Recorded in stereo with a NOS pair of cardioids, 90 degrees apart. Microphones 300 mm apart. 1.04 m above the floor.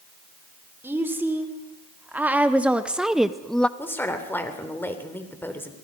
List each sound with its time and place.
0.8 s a woman speaking: 5° right, 3 m; by 3.7 s 5° left, 0.6 m
3.8 s a woman speaking: 5° left, 3.5 m